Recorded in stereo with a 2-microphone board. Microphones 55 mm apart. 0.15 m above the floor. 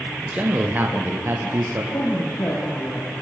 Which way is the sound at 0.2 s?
25° right (ahead or behind).